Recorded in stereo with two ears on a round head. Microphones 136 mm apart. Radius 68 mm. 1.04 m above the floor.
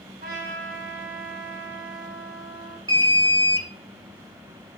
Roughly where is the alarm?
Right.